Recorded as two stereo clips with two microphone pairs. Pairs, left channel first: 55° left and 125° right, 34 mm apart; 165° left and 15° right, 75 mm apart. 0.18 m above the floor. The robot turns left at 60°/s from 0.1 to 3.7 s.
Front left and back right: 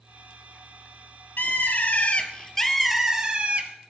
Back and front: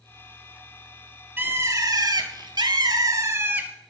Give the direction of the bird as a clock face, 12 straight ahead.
10 o'clock.